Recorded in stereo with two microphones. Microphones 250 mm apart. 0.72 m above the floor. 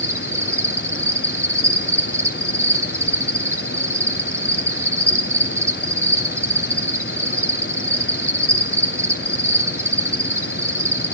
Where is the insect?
10° right (ahead or behind), 0.8 m.